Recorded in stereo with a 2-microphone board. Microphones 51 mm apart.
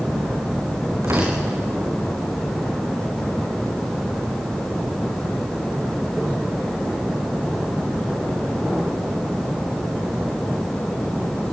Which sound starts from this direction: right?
Tearing paper, at 1.0 s.